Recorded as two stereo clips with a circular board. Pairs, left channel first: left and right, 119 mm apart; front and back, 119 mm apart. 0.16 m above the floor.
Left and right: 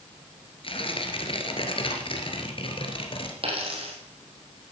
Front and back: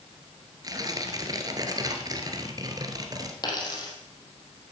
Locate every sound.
0.6 s tearing paper: 125° left, 1.7 m
3.4 s a dropped coin: 55° right, 3 m